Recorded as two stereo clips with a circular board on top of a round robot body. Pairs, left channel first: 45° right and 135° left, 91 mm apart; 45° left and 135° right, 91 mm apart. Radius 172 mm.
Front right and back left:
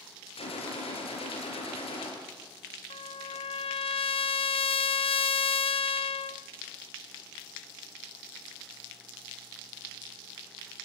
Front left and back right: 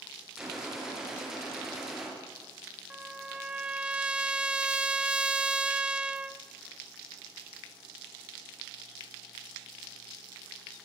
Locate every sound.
0.4 s a gunshot: 50° right, 5.5 m
2.9 s a trumpet: 55° right, 0.7 m